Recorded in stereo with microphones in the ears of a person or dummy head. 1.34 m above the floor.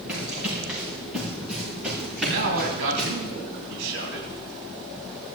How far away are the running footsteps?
About 8 m.